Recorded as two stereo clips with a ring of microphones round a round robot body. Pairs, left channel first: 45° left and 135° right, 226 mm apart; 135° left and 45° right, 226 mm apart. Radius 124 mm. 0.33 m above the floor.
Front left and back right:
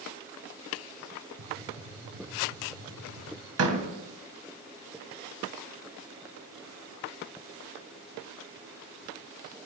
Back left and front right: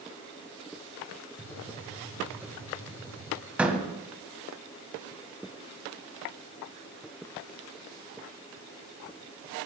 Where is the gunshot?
125° right, 8 m.